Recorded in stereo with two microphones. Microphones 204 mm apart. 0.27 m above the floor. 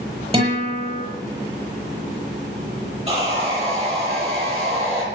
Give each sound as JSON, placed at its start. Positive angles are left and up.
{"t": 0.3, "sound": "a guitar", "side_deg": -30, "distance_m": 8.5}
{"t": 3.1, "sound": "sawing", "side_deg": -30, "distance_m": 8.0}